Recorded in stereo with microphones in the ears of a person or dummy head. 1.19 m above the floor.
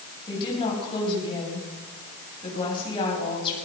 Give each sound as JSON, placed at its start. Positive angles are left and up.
{"t": 0.3, "sound": "a woman speaking", "side_deg": 30, "distance_m": 8.5}